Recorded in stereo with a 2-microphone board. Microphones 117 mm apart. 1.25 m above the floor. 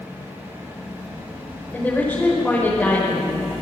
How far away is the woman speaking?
About 5 m.